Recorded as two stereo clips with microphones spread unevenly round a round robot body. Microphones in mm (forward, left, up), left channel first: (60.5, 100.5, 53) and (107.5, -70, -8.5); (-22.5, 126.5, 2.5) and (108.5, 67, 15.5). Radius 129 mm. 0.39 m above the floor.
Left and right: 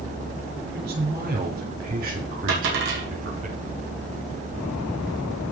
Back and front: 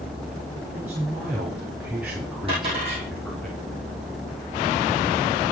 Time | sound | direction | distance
0.7 | a man speaking | 105° right | 5.5 m
2.5 | a dropped coin | 95° right | 5 m